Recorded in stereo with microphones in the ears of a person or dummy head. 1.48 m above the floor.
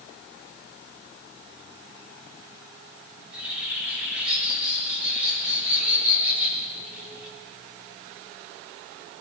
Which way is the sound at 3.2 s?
5° right (ahead or behind).